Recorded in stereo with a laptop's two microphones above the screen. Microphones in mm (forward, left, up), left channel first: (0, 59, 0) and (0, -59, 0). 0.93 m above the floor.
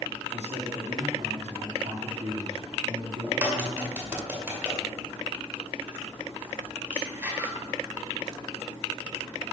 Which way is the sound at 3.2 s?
20° right (ahead or behind).